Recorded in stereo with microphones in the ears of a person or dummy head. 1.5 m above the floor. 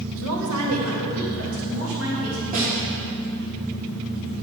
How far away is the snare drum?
About 2 m.